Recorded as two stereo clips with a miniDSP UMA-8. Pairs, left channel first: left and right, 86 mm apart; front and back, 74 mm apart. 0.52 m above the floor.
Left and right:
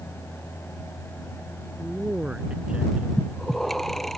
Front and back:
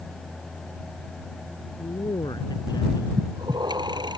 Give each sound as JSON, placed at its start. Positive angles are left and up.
{"t": 1.8, "sound": "a man speaking", "azimuth_deg": -10}
{"t": 3.2, "sound": "breathing", "azimuth_deg": 180}